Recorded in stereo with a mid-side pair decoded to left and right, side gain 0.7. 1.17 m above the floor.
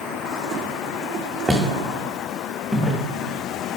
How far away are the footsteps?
About 4 m.